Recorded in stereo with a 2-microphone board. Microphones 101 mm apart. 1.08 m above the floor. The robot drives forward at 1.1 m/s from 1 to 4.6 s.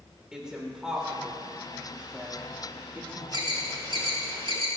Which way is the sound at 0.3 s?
10° right (ahead or behind).